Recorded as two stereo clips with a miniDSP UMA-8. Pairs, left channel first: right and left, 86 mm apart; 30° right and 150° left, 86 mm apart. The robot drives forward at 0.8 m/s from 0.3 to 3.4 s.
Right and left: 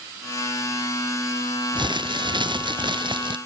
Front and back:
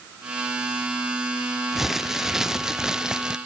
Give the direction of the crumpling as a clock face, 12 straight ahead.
10 o'clock.